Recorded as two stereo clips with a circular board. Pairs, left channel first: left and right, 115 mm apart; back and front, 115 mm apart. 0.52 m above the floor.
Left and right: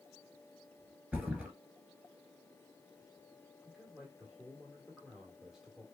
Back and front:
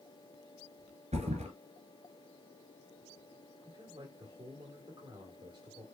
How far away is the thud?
About 2 m.